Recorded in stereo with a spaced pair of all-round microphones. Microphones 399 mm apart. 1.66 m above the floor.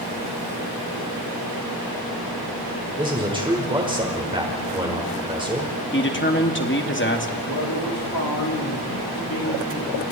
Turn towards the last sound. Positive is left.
turn(degrees=55)  # may be behind; listen again after turning